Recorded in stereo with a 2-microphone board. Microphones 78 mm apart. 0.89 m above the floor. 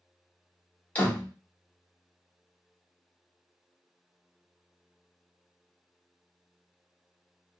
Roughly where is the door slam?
Centre.